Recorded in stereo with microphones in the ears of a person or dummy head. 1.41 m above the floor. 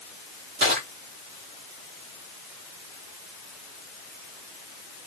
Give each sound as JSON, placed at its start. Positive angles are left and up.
{"t": 0.6, "sound": "crushing", "side_deg": -60, "distance_m": 1.7}